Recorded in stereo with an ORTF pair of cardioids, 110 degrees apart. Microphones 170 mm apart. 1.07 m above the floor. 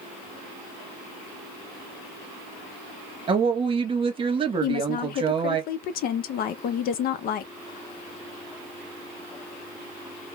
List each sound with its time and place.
3.3 s a woman speaking: 30° right, 0.9 m
4.6 s a woman speaking: 60° left, 0.5 m